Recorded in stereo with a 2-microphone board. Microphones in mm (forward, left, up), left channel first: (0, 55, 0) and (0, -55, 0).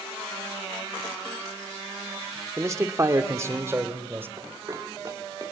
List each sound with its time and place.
2.6 s a man speaking: 25° right (ahead or behind), 1.4 m; by 4.3 s 20° right (ahead or behind), 2.5 m
4.4 s running footsteps: 35° right (ahead or behind), 4 m; by 5.5 s 30° right (ahead or behind), 5 m